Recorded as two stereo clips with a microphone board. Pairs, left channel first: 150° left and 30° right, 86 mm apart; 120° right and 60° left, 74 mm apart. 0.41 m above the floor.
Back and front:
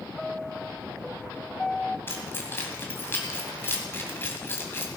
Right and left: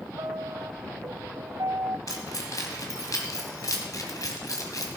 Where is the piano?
70° left, 0.5 m.